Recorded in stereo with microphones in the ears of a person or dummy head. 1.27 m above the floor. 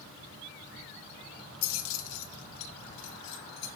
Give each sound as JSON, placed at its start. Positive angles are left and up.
{"t": 1.6, "sound": "keys jangling", "side_deg": 80, "distance_m": 0.8}